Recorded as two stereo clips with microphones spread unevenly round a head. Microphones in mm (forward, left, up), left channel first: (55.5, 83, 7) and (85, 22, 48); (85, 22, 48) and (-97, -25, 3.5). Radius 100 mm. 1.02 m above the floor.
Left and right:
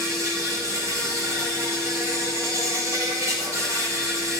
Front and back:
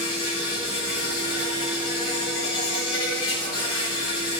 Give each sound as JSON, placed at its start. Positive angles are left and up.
{"t": 0.0, "sound": "an insect", "azimuth_deg": -10, "distance_m": 5.0}